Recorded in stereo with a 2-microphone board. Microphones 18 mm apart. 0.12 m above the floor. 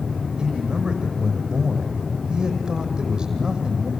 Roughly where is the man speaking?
Right.